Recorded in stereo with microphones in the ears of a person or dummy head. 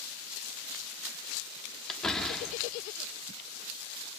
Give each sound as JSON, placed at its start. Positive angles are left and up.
{"t": 1.9, "sound": "a door slam", "side_deg": 0, "distance_m": 2.5}